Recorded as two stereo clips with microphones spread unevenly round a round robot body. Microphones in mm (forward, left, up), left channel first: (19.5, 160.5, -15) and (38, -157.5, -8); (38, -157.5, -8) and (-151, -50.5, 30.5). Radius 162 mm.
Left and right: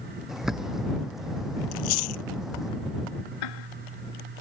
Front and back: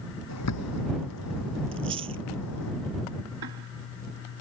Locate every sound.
0.3 s a bird: straight ahead
1.7 s chewing: 75° left
3.4 s ticking: 110° left